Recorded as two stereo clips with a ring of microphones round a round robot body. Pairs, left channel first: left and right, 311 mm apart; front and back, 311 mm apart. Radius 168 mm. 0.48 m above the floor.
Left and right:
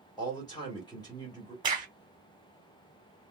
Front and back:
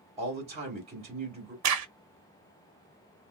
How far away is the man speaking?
About 1.2 m.